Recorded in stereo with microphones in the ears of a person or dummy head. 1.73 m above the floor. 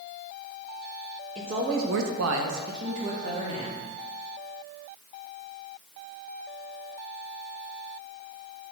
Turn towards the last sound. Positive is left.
turn(degrees=-40)  # may be behind; listen again after turning